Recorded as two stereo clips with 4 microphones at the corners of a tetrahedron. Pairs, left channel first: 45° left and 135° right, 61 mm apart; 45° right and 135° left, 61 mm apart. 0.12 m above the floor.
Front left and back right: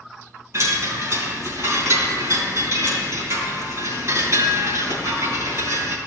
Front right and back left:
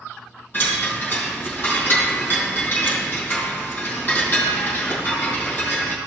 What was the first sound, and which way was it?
A chime, 105° right.